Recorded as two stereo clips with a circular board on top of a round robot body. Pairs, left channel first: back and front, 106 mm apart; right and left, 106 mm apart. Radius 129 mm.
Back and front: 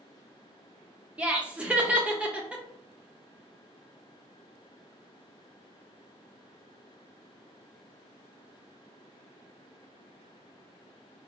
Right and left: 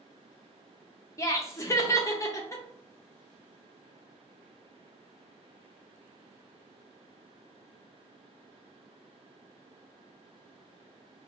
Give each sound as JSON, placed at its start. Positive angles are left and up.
{"t": 1.2, "sound": "laughter", "azimuth_deg": -65, "distance_m": 0.9}